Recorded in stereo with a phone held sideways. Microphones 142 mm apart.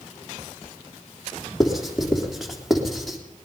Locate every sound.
1.6 s writing: centre (ahead or behind), 3.5 m